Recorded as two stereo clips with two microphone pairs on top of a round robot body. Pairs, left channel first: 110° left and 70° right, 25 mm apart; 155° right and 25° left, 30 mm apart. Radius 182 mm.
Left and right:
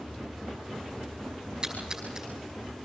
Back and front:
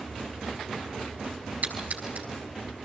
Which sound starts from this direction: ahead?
A splash, at 1.6 s.